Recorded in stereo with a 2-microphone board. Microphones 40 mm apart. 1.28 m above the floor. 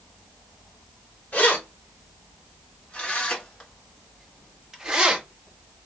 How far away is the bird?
I don't hear a bird.